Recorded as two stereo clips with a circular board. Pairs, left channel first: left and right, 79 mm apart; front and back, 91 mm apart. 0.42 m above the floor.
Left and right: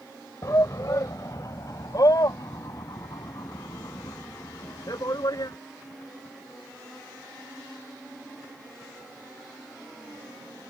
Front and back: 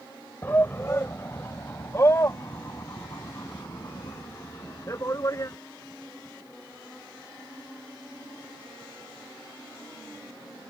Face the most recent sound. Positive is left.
turn(degrees=55)